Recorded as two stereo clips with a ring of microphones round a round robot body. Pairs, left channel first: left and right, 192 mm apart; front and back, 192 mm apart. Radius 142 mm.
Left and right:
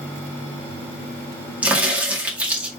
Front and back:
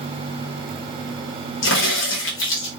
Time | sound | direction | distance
1.6 | a crack | 5° right | 2 m